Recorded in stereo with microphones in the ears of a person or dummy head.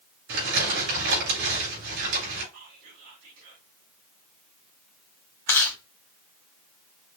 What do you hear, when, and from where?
0.3 s crumpling: 75° right (ahead or behind), 3.5 m
2.5 s whispering: 75° right (ahead or behind), 3 m
5.5 s chewing: 20° left (ahead or behind), 1.5 m